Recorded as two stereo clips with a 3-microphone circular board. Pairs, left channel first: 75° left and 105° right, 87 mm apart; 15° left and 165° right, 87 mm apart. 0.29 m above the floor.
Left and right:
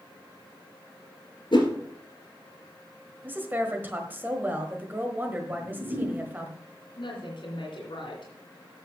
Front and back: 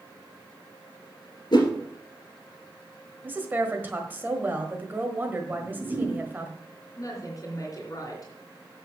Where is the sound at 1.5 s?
50° left, 2 m.